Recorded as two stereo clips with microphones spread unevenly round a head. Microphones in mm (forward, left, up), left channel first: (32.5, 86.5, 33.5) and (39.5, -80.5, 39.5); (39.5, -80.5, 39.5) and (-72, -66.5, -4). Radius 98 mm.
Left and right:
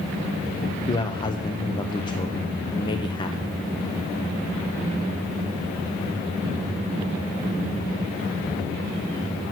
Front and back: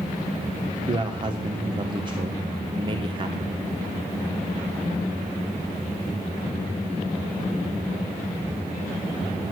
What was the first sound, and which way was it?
A man speaking, 155° left.